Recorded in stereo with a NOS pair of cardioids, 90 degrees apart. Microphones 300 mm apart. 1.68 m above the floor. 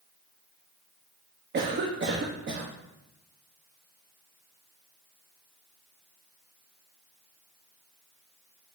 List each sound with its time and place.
1.5 s a cough: 35° right, 1.1 m